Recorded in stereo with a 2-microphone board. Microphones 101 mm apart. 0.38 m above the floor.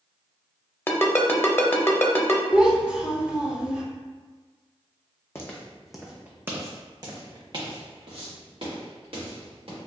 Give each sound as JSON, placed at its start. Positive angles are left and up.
{"t": 0.9, "sound": "a ringtone", "side_deg": 25, "distance_m": 0.5}
{"t": 2.5, "sound": "a child speaking", "side_deg": -10, "distance_m": 1.4}
{"t": 5.3, "sound": "footsteps", "side_deg": 25, "distance_m": 0.9}